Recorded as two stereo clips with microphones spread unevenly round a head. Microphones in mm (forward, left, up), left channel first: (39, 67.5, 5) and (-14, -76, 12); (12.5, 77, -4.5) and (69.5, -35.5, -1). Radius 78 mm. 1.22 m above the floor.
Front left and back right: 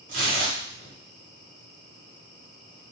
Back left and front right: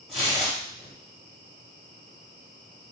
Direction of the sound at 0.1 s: 150° right.